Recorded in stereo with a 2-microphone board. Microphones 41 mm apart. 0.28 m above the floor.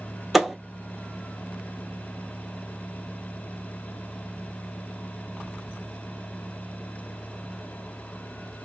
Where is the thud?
Centre (ahead or behind), 0.6 m.